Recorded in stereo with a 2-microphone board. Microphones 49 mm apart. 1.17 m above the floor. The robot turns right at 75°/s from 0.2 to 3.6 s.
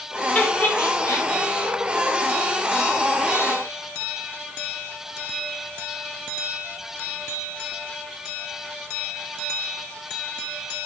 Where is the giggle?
25° left (ahead or behind), 0.6 m; by 1.3 s 70° left (ahead or behind), 0.6 m.